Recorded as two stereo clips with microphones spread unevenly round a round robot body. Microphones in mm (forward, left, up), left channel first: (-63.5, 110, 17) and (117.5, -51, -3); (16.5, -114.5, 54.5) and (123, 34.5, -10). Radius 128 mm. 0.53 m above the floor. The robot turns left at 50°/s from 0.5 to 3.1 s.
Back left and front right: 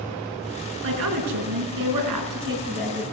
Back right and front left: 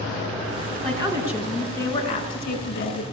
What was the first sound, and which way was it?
A woman speaking, 5° right.